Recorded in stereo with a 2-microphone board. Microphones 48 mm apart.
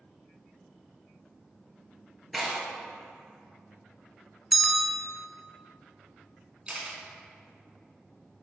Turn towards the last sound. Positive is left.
turn(degrees=-25)  # may be behind; listen again after turning